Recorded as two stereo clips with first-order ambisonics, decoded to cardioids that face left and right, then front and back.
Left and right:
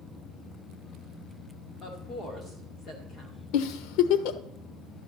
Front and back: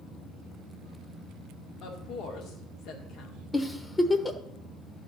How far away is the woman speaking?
About 2.0 m.